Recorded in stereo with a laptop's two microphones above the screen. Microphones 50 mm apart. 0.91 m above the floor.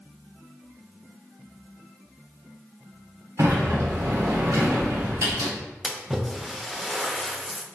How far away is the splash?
About 0.5 m.